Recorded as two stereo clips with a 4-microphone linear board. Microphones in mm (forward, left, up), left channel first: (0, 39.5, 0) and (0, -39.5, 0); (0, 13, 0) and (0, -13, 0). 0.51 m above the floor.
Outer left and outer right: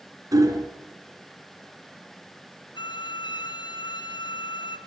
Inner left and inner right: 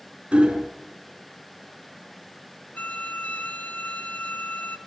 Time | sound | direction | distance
0.3 | hammering | 45° right (ahead or behind) | 3.5 m
2.8 | a violin | 85° left | 2.5 m